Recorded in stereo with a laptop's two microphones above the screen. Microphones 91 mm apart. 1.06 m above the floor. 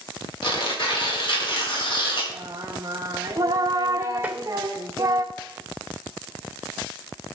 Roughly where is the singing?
Right.